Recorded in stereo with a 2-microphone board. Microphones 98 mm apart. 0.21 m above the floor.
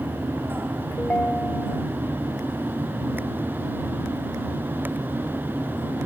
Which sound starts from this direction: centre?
A ringtone, at 1.0 s.